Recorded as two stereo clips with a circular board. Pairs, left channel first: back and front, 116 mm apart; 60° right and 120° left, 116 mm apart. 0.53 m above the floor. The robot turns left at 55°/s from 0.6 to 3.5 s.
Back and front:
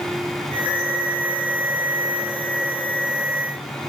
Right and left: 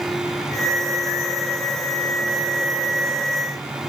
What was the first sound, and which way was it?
Only background noise.